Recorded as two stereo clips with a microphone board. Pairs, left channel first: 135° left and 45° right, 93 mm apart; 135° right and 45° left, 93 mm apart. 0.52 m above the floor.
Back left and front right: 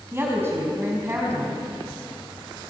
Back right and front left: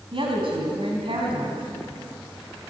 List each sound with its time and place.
0.1 s a woman speaking: 20° left, 4.5 m